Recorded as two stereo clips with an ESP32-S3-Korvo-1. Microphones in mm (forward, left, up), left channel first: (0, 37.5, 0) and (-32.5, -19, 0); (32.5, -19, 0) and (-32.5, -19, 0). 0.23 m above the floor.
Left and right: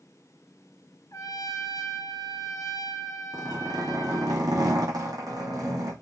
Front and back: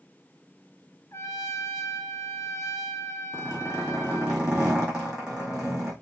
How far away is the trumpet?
About 1.2 m.